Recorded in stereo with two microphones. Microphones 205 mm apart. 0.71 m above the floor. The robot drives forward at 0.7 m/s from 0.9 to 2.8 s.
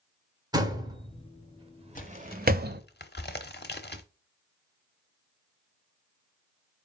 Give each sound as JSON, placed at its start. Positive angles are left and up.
{"t": 0.5, "sound": "a door slam", "side_deg": -20, "distance_m": 1.6}
{"t": 1.9, "sound": "a crack", "side_deg": 40, "distance_m": 0.9}